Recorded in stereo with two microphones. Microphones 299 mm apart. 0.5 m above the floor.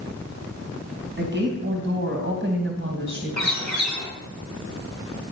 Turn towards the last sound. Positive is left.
turn(degrees=-65)  # may be behind; listen again after turning